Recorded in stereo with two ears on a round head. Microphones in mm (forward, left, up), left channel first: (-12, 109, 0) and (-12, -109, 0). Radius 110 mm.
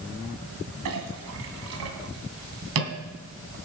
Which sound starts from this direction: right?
A clink, at 0.8 s.